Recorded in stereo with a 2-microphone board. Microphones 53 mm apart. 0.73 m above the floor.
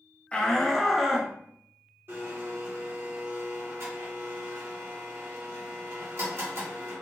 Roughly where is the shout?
Left.